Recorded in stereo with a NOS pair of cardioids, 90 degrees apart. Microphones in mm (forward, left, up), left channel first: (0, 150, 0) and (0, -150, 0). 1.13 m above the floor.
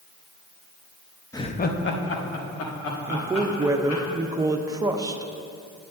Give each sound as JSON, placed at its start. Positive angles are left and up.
{"t": 1.3, "sound": "laughter", "azimuth_deg": 10, "distance_m": 0.8}
{"t": 3.1, "sound": "a woman speaking", "azimuth_deg": -10, "distance_m": 0.9}